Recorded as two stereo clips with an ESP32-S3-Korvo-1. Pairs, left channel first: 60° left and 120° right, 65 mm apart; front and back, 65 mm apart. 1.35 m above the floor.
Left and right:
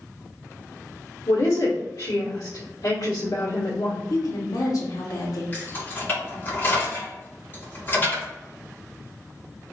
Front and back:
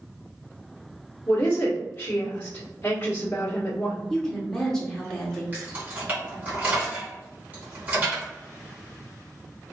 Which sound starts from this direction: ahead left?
A woman speaking, at 1.3 s.